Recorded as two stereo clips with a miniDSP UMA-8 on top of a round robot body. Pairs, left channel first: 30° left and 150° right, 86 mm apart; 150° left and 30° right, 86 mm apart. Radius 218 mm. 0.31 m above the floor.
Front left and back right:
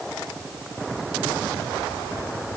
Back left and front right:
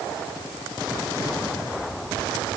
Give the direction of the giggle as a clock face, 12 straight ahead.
No giggle in this recording.